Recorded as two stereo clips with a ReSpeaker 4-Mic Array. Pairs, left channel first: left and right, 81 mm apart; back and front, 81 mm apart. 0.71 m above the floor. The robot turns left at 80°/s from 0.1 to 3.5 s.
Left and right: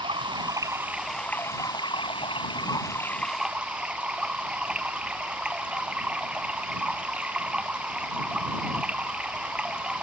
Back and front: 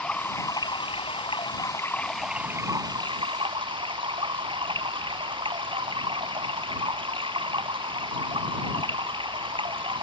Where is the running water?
100° right; by 10.0 s 10° right.